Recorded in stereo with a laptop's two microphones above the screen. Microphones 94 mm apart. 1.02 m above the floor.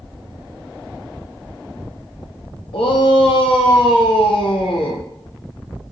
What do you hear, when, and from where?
2.7 s a shout: 70° left (ahead or behind), 0.5 m